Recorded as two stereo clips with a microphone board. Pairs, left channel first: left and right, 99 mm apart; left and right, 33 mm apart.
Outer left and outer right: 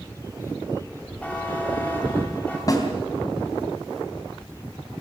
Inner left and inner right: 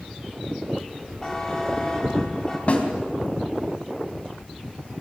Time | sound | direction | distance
1.2 | a buzzer | 15° left (ahead or behind) | 5 m
2.7 | a snare drum | 40° left (ahead or behind) | 3 m